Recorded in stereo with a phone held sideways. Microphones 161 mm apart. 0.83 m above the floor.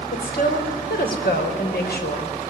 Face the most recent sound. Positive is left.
turn(degrees=75)  # may be behind; listen again after turning